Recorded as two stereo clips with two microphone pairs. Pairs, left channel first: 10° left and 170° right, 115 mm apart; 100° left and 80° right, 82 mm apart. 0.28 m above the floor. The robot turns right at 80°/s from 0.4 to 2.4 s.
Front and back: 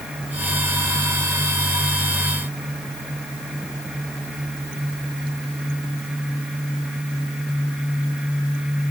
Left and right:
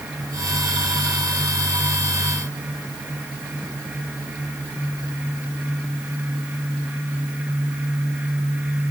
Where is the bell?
I don't hear a bell.